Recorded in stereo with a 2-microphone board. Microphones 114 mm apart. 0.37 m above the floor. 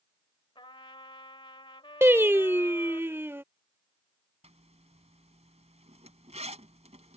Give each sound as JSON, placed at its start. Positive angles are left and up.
{"t": 0.6, "sound": "a trumpet", "side_deg": 50}
{"t": 2.0, "sound": "singing", "side_deg": -20}
{"t": 4.4, "sound": "a zipper", "side_deg": -75}